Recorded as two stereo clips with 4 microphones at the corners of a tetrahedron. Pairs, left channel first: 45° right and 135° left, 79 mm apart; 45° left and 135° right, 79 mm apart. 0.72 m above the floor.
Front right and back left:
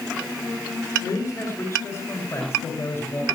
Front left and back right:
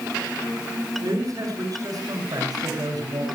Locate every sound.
1.0 s a man speaking: 95° right, 8.5 m; by 3.2 s 105° right, 7 m